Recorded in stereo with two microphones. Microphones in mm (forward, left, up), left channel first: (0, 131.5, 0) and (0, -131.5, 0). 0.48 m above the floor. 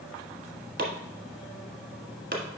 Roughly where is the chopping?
Right.